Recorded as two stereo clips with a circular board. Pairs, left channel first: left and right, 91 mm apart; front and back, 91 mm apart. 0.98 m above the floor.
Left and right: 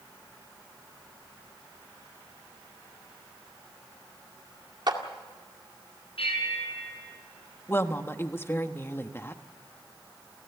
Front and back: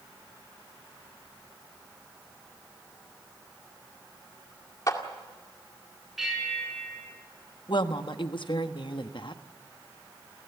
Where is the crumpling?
I don't hear crumpling.